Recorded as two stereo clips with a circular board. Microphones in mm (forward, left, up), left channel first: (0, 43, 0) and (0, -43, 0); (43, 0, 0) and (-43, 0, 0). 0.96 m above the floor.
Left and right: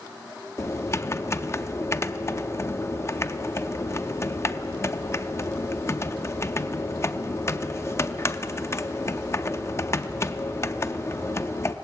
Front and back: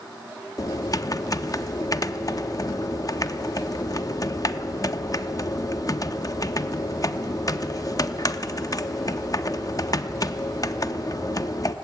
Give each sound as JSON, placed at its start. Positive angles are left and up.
{"t": 0.6, "sound": "typing on a keyboard", "azimuth_deg": 40, "distance_m": 0.6}